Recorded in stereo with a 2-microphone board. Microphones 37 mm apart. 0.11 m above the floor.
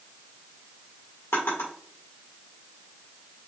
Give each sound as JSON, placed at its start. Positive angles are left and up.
{"t": 1.3, "sound": "a drawer", "side_deg": 80, "distance_m": 2.0}